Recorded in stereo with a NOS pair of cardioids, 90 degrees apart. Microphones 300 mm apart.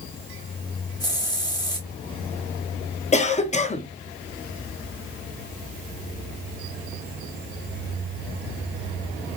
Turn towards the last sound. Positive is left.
turn(degrees=25)